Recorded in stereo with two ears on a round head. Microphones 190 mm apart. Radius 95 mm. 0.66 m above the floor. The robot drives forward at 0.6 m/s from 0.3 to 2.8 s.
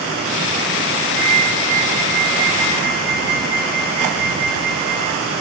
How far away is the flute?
About 5 m.